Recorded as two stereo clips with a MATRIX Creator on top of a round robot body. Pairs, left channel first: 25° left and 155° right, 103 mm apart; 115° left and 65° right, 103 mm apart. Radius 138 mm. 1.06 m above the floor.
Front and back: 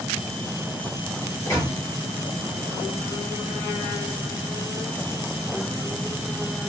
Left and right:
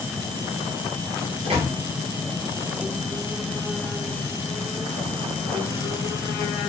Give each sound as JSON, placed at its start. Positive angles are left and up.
{"t": 1.4, "sound": "a microwave", "azimuth_deg": -40, "distance_m": 1.2}